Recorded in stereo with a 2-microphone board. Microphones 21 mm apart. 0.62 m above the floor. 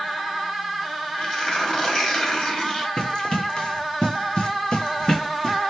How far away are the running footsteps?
About 1.4 m.